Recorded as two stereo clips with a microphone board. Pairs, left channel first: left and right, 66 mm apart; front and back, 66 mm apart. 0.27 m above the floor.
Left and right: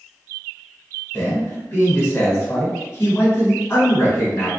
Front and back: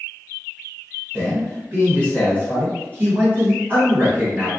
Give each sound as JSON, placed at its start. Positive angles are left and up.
{"t": 1.1, "sound": "a man speaking", "azimuth_deg": 135, "distance_m": 1.4}